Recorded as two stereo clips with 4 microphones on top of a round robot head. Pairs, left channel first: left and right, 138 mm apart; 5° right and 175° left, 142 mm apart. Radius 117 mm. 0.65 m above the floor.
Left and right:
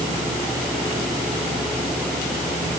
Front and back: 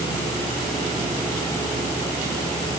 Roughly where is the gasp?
I don't hear a gasp.